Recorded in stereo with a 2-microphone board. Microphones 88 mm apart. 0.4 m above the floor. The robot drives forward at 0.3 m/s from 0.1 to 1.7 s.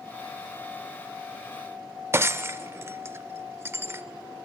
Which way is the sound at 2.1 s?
30° right (ahead or behind).